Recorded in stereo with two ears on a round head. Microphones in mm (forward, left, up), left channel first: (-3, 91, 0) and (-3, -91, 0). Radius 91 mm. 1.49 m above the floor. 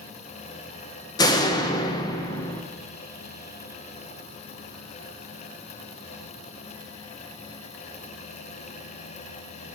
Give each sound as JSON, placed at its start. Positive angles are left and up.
{"t": 1.2, "sound": "a door slam", "side_deg": 20, "distance_m": 0.6}